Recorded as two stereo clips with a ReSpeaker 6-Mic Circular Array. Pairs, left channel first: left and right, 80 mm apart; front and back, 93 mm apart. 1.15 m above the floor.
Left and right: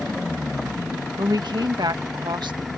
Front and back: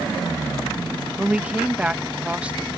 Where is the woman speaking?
105° right.